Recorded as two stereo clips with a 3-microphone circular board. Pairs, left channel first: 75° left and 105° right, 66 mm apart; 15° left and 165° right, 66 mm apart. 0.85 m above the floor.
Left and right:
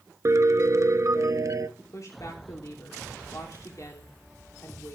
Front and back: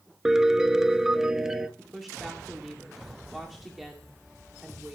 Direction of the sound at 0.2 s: 85° right.